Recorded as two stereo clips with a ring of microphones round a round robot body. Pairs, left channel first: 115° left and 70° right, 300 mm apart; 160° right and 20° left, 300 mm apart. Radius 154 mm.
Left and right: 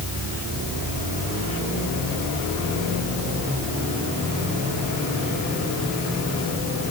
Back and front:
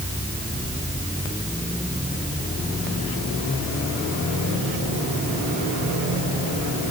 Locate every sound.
Only background noise.